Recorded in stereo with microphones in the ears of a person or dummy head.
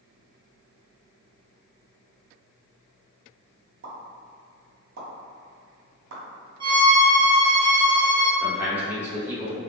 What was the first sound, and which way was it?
A pop, 75° right (ahead or behind).